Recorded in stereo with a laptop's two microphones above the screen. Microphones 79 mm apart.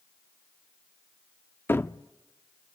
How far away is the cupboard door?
About 0.6 m.